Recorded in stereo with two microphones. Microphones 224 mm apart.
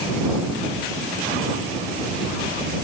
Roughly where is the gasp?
I don't hear a gasp.